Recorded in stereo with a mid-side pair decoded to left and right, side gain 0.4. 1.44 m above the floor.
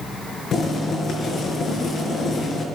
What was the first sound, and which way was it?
Boiling, 65° left.